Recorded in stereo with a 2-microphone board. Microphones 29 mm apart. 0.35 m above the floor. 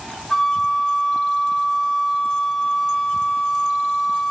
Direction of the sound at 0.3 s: 10° left (ahead or behind).